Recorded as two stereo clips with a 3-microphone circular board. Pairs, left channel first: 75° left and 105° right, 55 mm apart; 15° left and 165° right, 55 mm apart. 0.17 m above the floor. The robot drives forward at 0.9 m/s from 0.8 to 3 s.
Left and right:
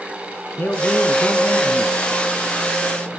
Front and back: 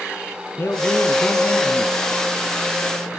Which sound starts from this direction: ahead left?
A man speaking, at 0.6 s.